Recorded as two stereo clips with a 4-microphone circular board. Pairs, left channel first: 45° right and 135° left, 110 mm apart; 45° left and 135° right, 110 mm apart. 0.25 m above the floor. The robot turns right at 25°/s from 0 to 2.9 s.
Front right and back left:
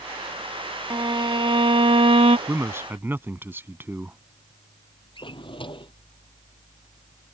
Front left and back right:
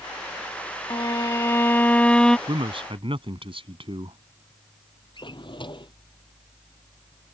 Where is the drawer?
Straight ahead.